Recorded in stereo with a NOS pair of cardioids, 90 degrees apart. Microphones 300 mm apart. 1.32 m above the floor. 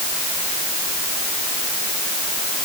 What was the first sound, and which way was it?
Only background noise.